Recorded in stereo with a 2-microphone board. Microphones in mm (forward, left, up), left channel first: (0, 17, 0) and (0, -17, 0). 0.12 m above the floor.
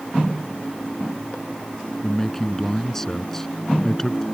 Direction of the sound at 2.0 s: 10° left (ahead or behind).